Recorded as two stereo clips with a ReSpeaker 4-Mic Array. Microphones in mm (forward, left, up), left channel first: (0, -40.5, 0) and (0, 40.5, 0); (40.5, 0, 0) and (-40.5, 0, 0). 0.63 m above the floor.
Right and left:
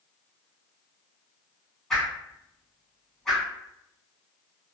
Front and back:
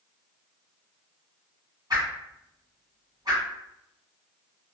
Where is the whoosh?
170° right, 1.6 m.